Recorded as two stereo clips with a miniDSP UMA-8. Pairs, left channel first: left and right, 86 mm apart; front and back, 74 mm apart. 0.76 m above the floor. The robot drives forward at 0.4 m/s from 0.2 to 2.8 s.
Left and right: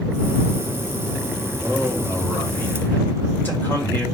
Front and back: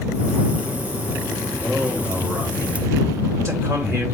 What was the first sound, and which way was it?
A man speaking, 125° left.